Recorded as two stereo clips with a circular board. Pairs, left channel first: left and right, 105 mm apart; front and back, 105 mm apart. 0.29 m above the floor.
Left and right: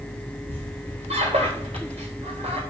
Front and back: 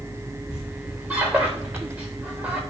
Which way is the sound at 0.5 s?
105° right.